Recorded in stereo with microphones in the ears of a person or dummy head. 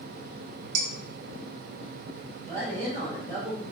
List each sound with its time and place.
0.8 s dishes clattering: 65° right (ahead or behind), 2 m
2.4 s a woman speaking: 30° right (ahead or behind), 4 m